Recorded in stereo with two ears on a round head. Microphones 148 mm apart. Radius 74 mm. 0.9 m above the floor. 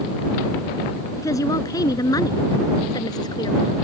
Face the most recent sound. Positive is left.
turn(degrees=25)  # may be behind; listen again after turning